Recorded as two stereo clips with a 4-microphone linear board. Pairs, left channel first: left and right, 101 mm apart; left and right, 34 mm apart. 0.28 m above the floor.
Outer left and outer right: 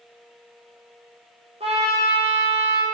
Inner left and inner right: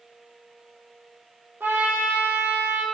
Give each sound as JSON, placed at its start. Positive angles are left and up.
{"t": 1.6, "sound": "a trumpet", "side_deg": -85, "distance_m": 1.3}